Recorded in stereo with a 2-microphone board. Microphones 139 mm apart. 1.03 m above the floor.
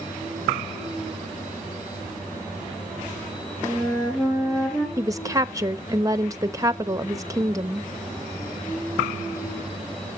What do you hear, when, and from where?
3.6 s a flute: 5° left (ahead or behind), 5 m
5.0 s a woman speaking: 25° right (ahead or behind), 1.0 m